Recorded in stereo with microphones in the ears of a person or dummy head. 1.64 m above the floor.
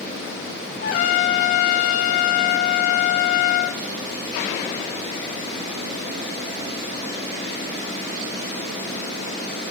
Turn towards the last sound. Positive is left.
turn(degrees=70)  # may be behind; listen again after turning